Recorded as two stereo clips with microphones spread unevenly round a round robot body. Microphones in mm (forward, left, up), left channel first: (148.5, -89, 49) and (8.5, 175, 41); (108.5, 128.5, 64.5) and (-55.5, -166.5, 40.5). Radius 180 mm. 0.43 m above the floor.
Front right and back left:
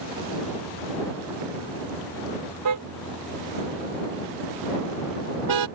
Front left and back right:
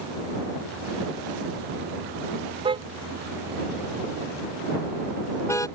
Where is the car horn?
165° left; by 5.7 s 140° left.